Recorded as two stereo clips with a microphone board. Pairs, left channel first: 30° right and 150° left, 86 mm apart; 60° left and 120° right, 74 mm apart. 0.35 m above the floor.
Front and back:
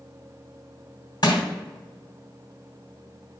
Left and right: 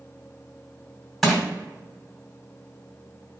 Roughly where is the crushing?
Ahead right.